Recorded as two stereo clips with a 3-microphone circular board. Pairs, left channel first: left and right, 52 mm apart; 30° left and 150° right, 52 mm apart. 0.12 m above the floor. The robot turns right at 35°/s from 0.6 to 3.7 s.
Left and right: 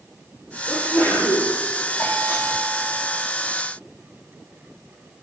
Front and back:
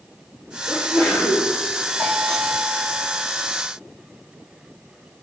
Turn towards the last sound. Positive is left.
turn(degrees=145)